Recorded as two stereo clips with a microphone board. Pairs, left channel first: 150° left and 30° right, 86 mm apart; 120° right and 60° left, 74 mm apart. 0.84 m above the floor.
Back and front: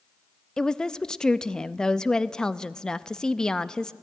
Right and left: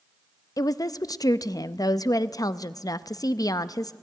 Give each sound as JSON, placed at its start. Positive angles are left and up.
{"t": 0.6, "sound": "a woman speaking", "azimuth_deg": -130, "distance_m": 0.5}